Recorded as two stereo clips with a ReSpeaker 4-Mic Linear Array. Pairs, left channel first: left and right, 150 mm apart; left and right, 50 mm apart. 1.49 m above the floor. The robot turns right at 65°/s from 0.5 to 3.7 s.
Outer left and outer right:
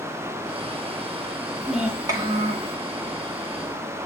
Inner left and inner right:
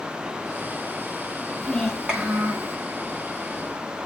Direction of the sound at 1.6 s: 170° left.